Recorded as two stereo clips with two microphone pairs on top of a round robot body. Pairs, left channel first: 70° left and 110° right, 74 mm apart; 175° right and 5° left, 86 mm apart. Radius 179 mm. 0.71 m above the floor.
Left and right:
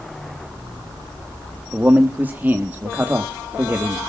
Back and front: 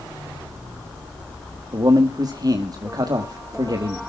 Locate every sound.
1.7 s a man speaking: 40° right, 1.4 m